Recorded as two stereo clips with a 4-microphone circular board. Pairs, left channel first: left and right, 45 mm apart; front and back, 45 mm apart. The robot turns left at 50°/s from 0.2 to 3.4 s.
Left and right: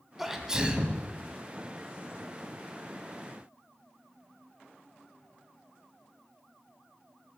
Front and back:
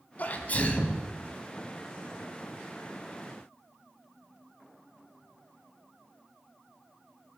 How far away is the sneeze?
About 1.5 m.